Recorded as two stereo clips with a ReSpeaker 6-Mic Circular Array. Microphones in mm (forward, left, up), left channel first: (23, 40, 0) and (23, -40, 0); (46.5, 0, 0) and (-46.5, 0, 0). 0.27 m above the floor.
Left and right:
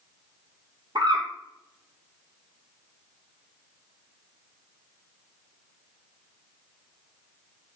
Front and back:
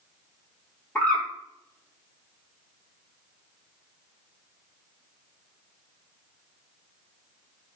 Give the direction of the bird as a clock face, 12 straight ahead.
2 o'clock.